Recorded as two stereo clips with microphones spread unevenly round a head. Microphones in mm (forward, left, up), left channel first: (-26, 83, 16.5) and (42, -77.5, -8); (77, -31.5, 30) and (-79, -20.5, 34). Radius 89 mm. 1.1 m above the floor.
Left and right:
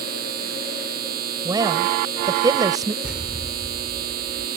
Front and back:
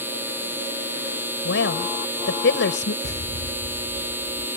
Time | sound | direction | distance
0.0 | a machine running | 105° right | ?
1.4 | a woman speaking | 5° left | ?
3.0 | an explosion | 20° left | ?